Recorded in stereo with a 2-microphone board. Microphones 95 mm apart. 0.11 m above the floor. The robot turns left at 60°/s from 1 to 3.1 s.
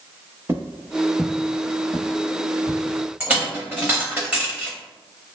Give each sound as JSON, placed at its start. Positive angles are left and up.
{"t": 0.5, "sound": "footsteps", "side_deg": -25, "distance_m": 0.6}
{"t": 3.2, "sound": "a dropped coin", "side_deg": -10, "distance_m": 1.0}